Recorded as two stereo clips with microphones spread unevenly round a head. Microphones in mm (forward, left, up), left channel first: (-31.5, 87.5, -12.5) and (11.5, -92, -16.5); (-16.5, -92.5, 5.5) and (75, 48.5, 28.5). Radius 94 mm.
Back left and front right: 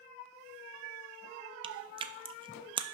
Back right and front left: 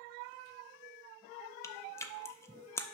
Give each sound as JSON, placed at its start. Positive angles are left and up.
{"t": 1.6, "sound": "chewing", "azimuth_deg": -50, "distance_m": 0.5}